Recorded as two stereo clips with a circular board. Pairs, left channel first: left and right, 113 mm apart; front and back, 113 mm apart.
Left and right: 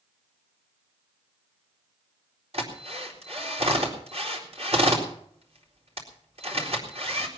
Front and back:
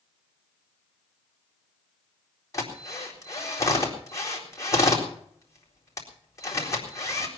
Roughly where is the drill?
Ahead right.